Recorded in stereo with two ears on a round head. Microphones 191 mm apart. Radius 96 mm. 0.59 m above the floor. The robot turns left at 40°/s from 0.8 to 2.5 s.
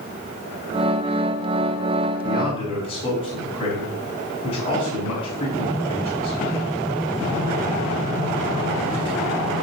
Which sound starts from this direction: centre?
A man speaking, at 2.2 s.